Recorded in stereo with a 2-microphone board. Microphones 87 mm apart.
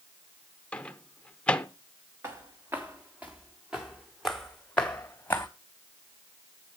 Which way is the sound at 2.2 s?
30° right (ahead or behind).